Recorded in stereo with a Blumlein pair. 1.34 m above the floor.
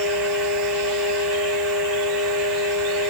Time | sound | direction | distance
0.0 | a fan | 20° right | 1.3 m